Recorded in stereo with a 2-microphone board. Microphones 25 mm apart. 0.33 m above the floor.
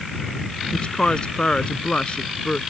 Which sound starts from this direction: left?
A woman speaking, at 0.7 s.